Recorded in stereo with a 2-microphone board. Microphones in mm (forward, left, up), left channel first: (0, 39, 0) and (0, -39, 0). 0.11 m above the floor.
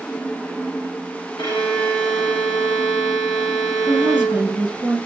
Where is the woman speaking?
20° right (ahead or behind), 1.1 m.